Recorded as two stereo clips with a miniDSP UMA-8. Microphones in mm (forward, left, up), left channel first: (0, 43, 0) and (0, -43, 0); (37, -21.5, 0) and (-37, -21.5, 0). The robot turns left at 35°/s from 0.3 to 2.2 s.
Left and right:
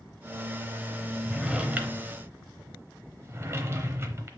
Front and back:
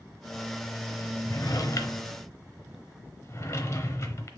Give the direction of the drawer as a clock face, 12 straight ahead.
12 o'clock.